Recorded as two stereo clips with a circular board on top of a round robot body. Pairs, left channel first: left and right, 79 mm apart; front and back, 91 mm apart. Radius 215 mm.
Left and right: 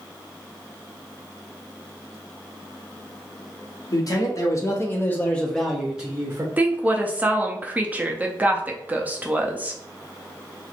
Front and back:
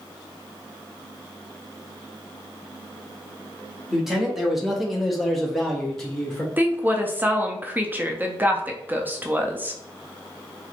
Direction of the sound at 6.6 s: 135° right.